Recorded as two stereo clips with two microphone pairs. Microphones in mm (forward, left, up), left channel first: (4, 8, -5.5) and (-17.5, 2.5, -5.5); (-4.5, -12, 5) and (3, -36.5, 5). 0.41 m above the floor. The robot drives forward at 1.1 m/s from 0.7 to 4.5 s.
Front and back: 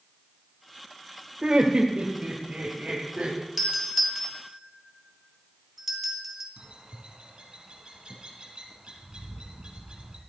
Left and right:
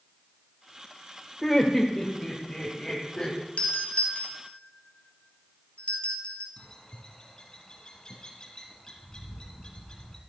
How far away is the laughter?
About 1.4 m.